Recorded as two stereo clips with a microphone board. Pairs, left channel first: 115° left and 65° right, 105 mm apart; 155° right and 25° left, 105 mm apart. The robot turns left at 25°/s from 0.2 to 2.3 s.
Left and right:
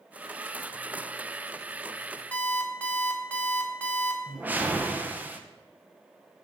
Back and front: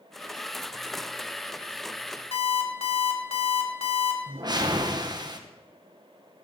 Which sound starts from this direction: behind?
An alarm clock, at 2.3 s.